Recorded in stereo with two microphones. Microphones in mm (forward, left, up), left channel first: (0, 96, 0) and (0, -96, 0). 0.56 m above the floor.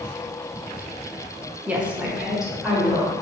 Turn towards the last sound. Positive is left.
turn(degrees=0)  # may be behind; listen again after turning